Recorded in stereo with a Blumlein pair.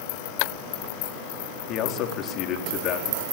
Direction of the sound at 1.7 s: 35° left.